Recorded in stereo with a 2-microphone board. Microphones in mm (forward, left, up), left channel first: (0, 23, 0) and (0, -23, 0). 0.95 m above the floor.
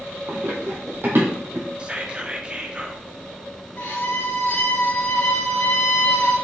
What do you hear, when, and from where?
0.3 s running footsteps: 50° right (ahead or behind), 1.5 m; by 1.7 s 55° right (ahead or behind), 2 m
1.8 s whispering: 20° right (ahead or behind), 0.7 m
3.8 s a violin: 60° left (ahead or behind), 2 m